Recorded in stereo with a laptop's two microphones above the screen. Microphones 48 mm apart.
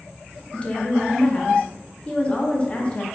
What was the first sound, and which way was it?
A woman speaking, 25° left (ahead or behind).